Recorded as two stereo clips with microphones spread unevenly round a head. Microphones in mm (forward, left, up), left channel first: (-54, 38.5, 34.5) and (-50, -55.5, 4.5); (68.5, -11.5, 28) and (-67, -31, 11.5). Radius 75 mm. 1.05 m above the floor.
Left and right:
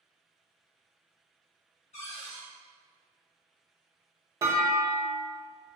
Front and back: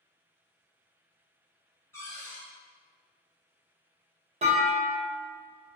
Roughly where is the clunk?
Behind right.